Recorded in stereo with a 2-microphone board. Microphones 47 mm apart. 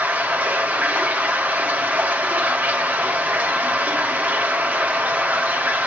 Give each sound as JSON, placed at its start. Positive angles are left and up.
{"t": 0.0, "sound": "running water", "side_deg": -35, "distance_m": 1.8}